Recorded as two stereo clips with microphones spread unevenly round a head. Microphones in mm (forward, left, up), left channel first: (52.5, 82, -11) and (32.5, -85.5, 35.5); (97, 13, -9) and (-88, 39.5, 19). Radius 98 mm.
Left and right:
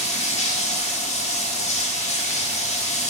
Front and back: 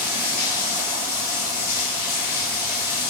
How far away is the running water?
About 2 m.